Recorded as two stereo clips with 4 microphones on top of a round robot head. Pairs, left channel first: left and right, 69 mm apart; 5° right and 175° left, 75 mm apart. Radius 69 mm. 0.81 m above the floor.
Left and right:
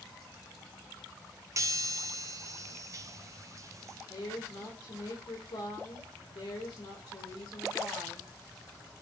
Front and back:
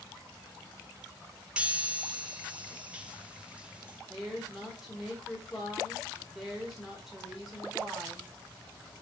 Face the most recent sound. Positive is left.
turn(degrees=90)